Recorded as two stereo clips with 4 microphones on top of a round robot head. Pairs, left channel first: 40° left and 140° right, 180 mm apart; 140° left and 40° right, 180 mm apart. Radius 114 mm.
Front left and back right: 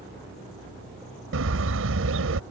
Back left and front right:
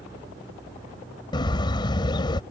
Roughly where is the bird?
Behind right.